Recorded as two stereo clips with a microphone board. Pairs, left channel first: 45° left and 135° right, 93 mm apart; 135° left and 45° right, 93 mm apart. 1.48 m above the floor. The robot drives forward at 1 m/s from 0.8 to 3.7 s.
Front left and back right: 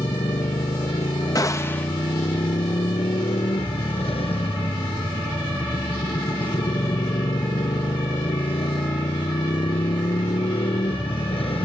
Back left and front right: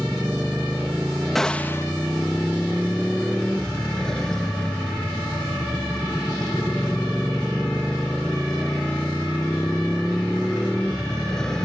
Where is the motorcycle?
45° left; by 11.7 s 50° left.